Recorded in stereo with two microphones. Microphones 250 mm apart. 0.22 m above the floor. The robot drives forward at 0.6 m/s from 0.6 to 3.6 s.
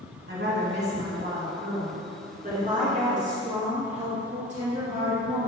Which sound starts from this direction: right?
A woman speaking, at 0.3 s.